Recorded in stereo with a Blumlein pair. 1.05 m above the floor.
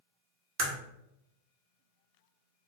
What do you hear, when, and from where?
0.6 s a crack: 40° right, 0.8 m